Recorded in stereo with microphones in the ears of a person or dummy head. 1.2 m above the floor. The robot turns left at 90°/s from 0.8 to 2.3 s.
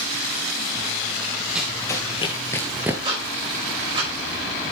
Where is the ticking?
25° right (ahead or behind), 5.5 m.